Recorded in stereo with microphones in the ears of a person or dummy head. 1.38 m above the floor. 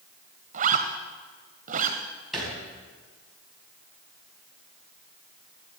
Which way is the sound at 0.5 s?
45° right (ahead or behind).